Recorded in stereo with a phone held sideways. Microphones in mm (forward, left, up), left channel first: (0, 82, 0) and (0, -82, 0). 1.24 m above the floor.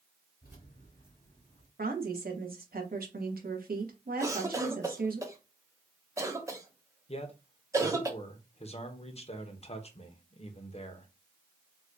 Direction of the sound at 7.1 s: 45° left (ahead or behind).